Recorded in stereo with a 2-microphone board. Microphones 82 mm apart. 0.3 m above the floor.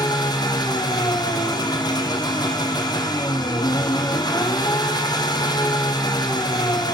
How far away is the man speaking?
No man speaking in this recording.